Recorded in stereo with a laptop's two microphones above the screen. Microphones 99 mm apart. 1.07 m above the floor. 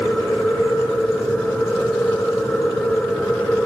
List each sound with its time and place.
0.0 s a machine running: 10° left (ahead or behind), 2.5 m